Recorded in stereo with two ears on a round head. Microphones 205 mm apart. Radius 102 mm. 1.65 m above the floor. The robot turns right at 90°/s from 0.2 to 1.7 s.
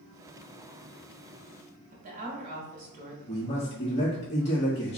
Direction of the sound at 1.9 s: 40° right (ahead or behind).